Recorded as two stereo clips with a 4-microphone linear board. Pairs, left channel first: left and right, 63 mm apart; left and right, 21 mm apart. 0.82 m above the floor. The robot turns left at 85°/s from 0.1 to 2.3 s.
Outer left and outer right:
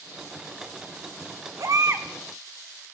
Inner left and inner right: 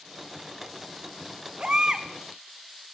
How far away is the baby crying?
About 0.7 m.